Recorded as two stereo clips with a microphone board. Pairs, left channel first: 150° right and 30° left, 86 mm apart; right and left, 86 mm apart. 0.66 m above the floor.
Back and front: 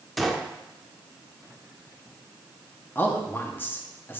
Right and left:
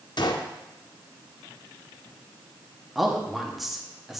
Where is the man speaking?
175° left, 0.9 m.